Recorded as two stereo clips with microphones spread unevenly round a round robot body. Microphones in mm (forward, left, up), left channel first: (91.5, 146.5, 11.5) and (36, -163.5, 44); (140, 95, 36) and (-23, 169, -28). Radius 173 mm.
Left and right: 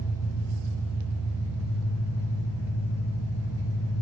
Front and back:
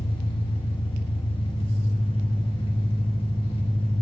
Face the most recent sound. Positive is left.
turn(degrees=35)